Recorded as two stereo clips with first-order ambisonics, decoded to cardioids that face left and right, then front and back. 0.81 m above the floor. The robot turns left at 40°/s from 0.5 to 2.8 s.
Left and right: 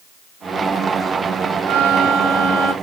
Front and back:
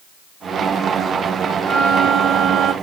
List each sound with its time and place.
1.7 s a violin: 100° right, 0.8 m; by 2.7 s 145° right, 0.8 m